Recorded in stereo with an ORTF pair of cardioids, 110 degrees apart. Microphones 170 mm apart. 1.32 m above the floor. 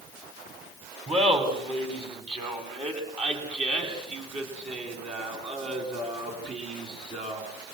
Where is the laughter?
30° right, 8.5 m; by 7.7 s 40° right, 13.5 m.